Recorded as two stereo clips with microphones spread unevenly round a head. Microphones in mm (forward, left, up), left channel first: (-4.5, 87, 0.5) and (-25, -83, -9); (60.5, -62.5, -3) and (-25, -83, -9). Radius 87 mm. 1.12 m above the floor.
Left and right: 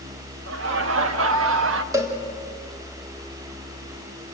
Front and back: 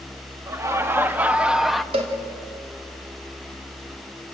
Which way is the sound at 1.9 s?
170° right.